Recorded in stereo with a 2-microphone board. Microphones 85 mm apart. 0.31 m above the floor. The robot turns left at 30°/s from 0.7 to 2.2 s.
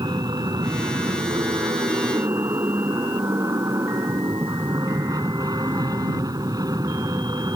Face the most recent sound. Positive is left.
turn(degrees=-125)